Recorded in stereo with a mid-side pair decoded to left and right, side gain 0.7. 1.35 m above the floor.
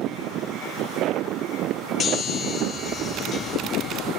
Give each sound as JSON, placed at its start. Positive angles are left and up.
{"t": 2.0, "sound": "a chime", "azimuth_deg": 25, "distance_m": 4.5}